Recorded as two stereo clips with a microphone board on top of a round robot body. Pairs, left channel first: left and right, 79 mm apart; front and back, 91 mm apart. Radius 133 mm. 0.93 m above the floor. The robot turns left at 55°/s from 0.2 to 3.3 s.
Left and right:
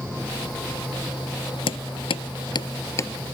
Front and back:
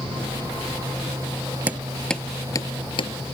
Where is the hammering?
105° left; by 3.1 s 25° left.